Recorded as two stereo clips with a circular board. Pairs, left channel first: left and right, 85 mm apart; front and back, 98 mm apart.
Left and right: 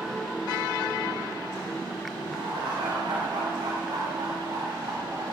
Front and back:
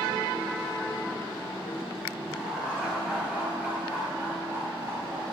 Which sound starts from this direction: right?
Laughter, at 2.2 s.